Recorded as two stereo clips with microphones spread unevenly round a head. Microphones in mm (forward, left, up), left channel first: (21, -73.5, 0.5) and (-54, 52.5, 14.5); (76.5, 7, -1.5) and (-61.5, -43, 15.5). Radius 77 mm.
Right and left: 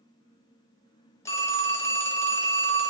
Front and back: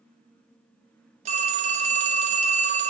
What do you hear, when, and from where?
1.2 s a phone ringing: 130° right, 0.5 m